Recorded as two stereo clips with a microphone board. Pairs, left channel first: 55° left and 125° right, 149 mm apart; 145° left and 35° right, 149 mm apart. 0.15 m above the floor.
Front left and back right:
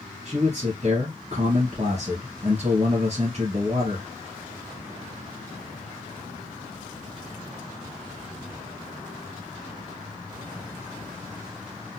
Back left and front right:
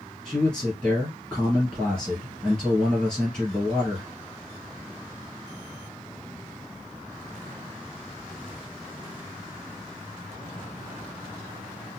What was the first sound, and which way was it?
A man speaking, 130° right.